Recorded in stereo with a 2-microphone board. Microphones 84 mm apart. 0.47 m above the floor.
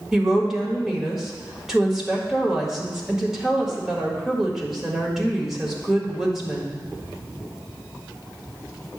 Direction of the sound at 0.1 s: 5° right (ahead or behind).